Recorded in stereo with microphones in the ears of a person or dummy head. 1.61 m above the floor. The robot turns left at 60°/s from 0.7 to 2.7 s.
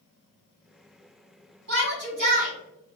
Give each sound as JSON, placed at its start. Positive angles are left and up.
{"t": 1.7, "sound": "a shout", "azimuth_deg": -90, "distance_m": 1.8}